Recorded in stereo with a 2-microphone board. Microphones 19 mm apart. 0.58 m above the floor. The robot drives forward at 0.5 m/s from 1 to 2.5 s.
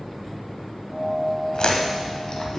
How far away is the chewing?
About 0.8 m.